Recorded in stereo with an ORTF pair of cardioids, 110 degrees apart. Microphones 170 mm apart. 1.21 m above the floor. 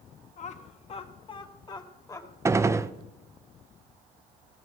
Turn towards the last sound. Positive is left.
turn(degrees=-15)